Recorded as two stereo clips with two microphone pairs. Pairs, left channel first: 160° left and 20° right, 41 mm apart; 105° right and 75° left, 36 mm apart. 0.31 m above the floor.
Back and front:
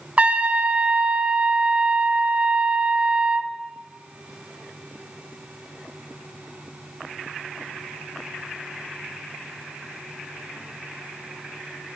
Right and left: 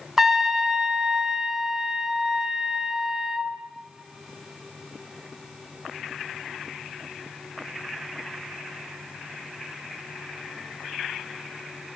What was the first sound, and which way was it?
A trumpet, 5° right.